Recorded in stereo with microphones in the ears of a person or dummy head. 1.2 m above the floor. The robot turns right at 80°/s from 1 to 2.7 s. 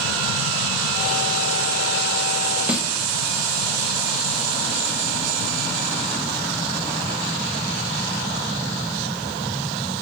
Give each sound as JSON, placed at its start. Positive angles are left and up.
{"t": 2.7, "sound": "a snare drum", "side_deg": 0, "distance_m": 0.7}